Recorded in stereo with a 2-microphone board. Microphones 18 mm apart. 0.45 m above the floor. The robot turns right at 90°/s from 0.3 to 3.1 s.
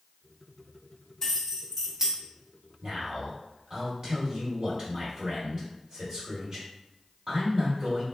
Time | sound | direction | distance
1.2 | keys jangling | 155° left | 1.0 m
2.8 | a man speaking | 45° right (ahead or behind) | 1.7 m